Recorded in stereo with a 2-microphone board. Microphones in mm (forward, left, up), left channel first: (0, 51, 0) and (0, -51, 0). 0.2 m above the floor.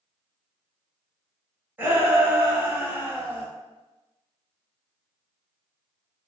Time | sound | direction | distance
1.8 | a shout | 20° right (ahead or behind) | 1.2 m